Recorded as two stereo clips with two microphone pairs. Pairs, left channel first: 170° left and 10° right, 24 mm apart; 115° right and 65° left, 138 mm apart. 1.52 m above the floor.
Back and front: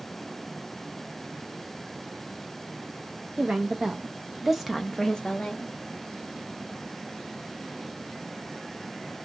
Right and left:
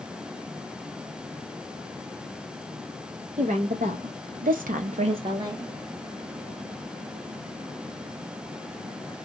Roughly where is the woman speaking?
Ahead left.